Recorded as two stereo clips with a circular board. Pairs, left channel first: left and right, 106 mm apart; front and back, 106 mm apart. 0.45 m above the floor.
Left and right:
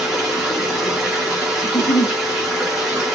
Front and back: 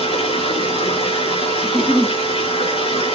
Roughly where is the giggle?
Left.